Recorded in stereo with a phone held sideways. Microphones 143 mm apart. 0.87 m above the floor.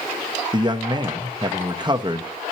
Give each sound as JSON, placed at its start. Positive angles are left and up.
{"t": 0.5, "sound": "a man speaking", "side_deg": -30, "distance_m": 0.8}